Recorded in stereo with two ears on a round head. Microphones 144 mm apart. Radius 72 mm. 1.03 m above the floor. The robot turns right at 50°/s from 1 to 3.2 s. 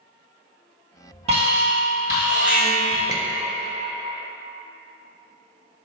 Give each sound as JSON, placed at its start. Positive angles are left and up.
{"t": 1.3, "sound": "an alarm", "azimuth_deg": -70, "distance_m": 1.7}
{"t": 3.1, "sound": "a squeak", "side_deg": -20, "distance_m": 0.6}